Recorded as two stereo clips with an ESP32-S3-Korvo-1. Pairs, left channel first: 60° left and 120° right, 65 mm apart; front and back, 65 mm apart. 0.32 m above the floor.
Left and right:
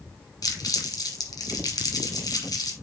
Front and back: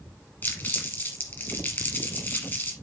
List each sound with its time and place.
0.4 s crumpling: 55° left, 2.5 m